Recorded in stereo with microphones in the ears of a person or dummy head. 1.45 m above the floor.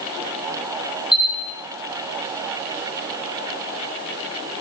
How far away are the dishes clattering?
I don't hear dishes clattering.